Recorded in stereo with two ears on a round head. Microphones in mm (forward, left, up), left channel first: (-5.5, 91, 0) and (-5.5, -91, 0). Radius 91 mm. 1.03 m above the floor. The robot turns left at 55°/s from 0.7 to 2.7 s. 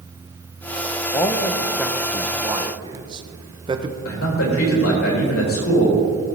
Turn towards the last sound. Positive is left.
turn(degrees=75)  # may be behind; listen again after turning